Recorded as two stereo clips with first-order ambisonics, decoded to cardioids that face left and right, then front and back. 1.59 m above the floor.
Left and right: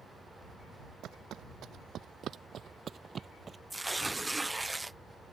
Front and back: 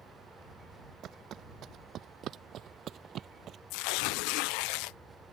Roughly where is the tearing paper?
Ahead.